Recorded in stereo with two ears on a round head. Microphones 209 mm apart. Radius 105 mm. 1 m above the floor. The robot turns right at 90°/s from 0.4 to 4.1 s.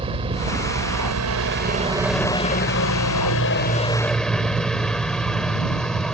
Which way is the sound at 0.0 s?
155° right.